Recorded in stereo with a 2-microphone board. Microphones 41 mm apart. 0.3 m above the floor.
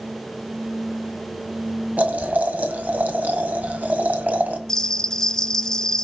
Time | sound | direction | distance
2.0 | boiling | 40° right (ahead or behind) | 1.5 m
4.7 | a bell | 15° left (ahead or behind) | 0.6 m